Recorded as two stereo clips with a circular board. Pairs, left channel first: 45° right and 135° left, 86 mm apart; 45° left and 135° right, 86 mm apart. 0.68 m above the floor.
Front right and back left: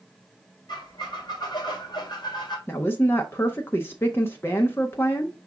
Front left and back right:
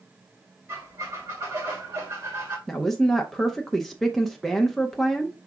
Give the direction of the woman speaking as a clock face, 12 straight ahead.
1 o'clock.